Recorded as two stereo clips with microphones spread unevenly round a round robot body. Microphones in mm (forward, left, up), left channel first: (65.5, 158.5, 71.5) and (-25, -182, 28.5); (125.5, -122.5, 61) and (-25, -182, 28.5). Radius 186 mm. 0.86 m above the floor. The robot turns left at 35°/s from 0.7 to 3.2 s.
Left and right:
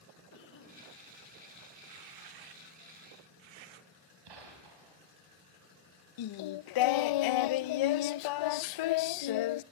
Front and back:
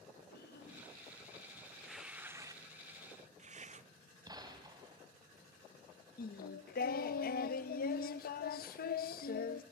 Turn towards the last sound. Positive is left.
turn(degrees=55)